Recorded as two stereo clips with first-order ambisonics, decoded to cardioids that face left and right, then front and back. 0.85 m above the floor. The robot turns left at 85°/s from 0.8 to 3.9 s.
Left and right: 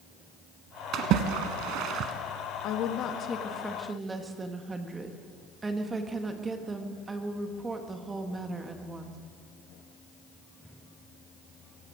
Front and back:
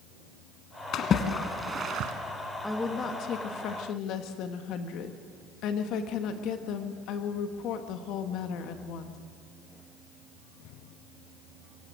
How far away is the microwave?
No microwave in this recording.